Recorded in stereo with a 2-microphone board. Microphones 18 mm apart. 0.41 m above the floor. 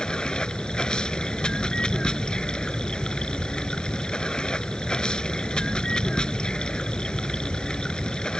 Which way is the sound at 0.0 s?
55° left (ahead or behind).